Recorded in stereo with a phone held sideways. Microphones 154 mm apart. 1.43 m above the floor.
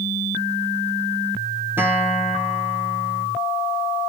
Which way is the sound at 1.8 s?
15° right (ahead or behind).